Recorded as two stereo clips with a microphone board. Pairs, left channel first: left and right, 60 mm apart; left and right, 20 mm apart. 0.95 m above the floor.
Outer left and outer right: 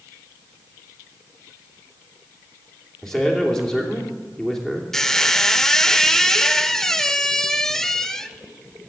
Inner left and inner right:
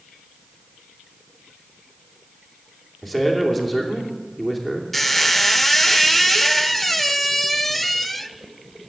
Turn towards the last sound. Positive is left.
turn(degrees=10)  # may be behind; listen again after turning